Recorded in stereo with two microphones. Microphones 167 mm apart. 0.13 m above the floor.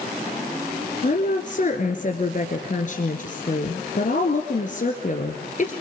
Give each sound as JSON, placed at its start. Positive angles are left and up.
{"t": 1.0, "sound": "a woman speaking", "side_deg": 50, "distance_m": 1.9}